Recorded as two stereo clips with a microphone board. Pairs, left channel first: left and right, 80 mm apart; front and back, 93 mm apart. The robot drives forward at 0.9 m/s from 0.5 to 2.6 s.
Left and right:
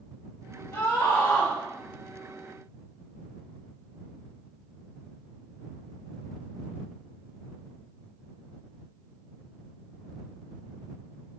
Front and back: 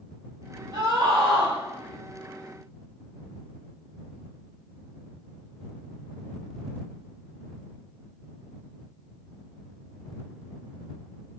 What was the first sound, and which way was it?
A scream, 145° left.